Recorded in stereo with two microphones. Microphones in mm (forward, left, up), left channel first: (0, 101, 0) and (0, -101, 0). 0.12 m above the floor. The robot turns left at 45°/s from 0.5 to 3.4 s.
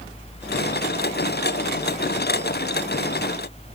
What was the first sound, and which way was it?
Only background noise.